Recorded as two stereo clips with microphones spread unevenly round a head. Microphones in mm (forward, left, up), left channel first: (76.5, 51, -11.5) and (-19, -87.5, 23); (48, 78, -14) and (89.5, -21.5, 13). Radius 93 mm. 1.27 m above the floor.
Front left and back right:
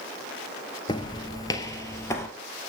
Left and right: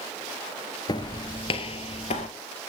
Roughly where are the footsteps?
Behind left.